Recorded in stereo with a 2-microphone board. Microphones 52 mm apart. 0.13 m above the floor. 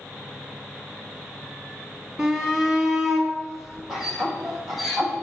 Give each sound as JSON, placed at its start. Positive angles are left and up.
{"t": 2.2, "sound": "a shout", "side_deg": -10, "distance_m": 2.0}